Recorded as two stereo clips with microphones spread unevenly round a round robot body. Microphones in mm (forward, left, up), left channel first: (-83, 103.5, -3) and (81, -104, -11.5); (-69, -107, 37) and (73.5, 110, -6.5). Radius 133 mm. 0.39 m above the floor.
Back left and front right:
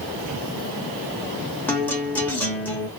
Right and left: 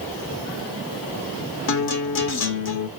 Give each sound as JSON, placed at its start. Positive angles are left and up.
{"t": 1.7, "sound": "a guitar", "azimuth_deg": -150, "distance_m": 0.8}